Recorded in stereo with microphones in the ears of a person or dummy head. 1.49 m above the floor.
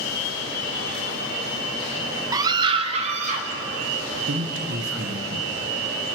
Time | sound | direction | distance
2.3 | a scream | 20° right (ahead or behind) | 0.9 m
4.3 | a man speaking | 65° right (ahead or behind) | 1.2 m